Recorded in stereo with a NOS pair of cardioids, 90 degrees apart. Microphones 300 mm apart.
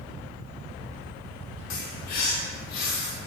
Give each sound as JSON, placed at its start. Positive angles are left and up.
{"t": 1.7, "sound": "a bird", "azimuth_deg": 65, "distance_m": 1.8}